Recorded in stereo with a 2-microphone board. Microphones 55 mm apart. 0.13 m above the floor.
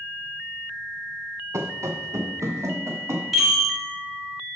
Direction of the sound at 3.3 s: 5° left (ahead or behind).